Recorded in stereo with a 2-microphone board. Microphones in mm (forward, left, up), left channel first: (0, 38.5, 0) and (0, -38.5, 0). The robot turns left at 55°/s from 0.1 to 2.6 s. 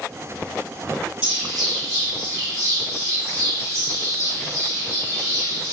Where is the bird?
10° right (ahead or behind), 1.6 m; by 5.7 s 20° left (ahead or behind), 1.6 m.